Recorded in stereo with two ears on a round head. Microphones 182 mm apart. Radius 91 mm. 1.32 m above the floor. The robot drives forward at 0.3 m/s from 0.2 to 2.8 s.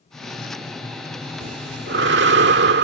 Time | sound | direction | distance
1.4 | breathing | 60° right (ahead or behind) | ?